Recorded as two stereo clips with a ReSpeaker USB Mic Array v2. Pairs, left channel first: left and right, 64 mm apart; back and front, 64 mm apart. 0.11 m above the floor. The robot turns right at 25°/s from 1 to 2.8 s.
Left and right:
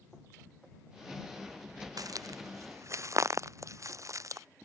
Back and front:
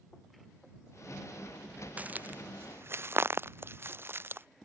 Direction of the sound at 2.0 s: 70° right.